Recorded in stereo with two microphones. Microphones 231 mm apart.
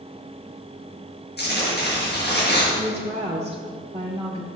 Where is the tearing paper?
45° left (ahead or behind), 5.5 m.